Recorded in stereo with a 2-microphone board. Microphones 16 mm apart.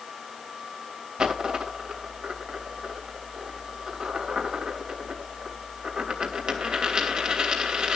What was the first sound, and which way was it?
A dropped coin, 65° right (ahead or behind).